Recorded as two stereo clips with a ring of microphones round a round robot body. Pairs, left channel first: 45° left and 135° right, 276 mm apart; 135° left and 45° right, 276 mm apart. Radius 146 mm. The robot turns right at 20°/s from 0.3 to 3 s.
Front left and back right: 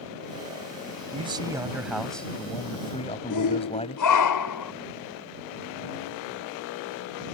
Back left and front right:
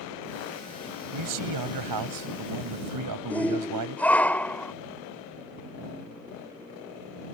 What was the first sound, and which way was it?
A man speaking, 65° right.